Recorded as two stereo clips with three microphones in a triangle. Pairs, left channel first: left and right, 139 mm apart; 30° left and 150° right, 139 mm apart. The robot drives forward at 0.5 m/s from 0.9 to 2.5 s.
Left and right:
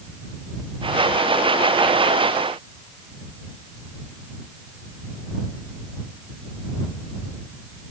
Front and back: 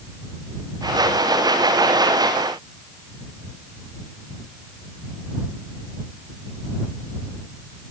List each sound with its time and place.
Only background noise.